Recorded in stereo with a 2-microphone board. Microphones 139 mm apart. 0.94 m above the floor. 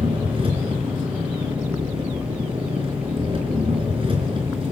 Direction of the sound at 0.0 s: 40° right (ahead or behind).